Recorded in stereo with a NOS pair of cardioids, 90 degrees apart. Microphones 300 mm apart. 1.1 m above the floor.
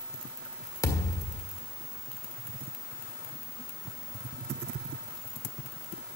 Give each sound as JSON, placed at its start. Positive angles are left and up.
{"t": 0.8, "sound": "a thud", "azimuth_deg": 10, "distance_m": 1.6}